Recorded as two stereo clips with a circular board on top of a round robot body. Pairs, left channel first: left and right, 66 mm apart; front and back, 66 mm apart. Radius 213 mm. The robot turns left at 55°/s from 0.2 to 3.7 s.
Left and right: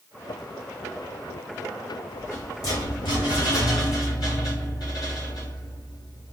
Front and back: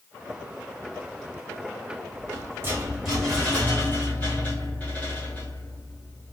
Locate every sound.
2.1 s a rattle: 155° left, 1.6 m; by 6.3 s 70° left, 1.6 m